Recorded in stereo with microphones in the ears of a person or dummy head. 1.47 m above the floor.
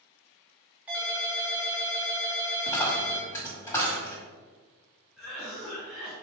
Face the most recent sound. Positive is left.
turn(degrees=10)  # may be behind; listen again after turning